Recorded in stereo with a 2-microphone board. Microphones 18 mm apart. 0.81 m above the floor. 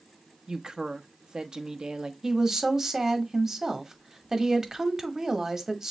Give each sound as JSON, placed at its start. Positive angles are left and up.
{"t": 0.5, "sound": "a woman speaking", "side_deg": -50, "distance_m": 0.6}
{"t": 2.2, "sound": "a woman speaking", "side_deg": -25, "distance_m": 1.0}